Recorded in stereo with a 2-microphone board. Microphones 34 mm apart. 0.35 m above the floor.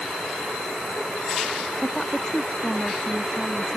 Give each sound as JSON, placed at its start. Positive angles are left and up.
{"t": 1.8, "sound": "a woman speaking", "side_deg": 15}